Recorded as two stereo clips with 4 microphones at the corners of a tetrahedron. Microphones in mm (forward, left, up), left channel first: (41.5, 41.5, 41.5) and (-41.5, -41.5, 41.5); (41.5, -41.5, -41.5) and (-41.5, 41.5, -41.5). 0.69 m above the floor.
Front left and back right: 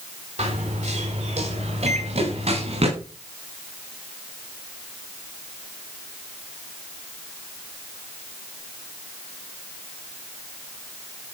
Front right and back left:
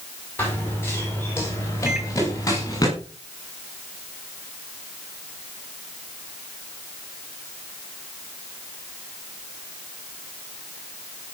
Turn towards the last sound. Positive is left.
turn(degrees=-145)